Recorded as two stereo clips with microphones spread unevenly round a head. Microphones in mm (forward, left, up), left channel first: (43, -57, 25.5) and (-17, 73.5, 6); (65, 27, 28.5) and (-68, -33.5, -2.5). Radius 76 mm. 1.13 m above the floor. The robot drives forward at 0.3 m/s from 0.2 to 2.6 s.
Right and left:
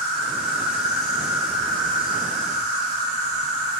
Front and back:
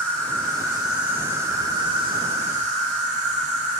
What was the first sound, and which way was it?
An insect, 50° right.